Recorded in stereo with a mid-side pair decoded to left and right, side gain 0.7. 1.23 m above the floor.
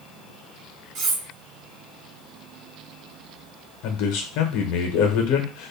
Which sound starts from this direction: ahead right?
Cutlery clinking, at 0.9 s.